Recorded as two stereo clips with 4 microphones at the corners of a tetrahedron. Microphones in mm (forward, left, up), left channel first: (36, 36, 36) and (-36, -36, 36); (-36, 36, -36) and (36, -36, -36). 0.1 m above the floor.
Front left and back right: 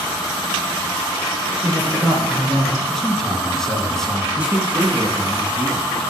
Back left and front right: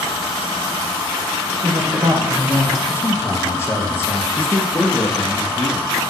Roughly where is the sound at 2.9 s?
Behind left.